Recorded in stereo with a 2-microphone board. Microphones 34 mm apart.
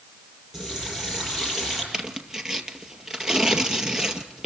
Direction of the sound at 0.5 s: 15° right (ahead or behind).